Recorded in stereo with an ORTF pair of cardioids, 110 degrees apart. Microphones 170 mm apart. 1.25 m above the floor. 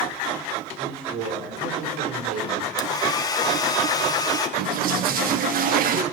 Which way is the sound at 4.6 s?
55° right.